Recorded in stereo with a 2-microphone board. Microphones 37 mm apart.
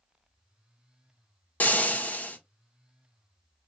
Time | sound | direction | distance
1.6 | frying | 50° left (ahead or behind) | 1.1 m